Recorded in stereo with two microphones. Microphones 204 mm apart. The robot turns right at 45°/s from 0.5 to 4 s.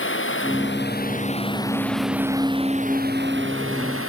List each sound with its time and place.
0.0 s running water: 110° left; by 4.1 s 90° right